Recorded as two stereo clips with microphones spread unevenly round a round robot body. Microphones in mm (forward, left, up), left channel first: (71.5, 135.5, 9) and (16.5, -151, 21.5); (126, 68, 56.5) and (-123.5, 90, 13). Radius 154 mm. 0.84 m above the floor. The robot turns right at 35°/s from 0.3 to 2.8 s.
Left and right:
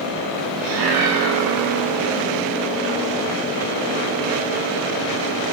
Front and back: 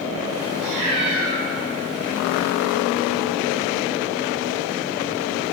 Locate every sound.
0.6 s a cat meowing: 155° right, 1.2 m; by 1.4 s 130° right, 1.2 m